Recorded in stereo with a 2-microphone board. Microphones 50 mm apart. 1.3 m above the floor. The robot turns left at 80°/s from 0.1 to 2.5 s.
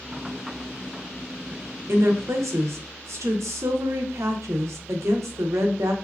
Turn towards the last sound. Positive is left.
turn(degrees=-105)